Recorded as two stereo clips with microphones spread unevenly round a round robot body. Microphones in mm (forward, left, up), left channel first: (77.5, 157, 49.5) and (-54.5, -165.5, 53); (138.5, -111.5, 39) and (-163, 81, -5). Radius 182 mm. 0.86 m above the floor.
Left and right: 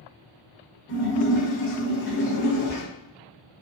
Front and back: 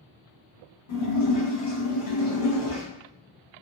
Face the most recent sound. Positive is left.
turn(degrees=10)